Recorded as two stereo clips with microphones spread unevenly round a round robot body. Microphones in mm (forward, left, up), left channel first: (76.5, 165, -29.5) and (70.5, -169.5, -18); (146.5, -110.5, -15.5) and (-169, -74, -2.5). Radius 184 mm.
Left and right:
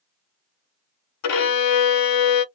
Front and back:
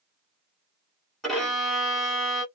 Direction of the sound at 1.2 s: 80° left.